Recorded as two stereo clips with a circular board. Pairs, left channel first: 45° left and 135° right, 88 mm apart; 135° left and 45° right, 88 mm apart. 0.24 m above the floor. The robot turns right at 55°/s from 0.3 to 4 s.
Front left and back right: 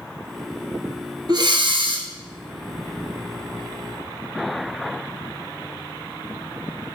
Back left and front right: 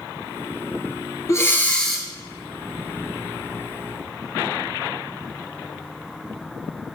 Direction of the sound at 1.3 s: 170° right.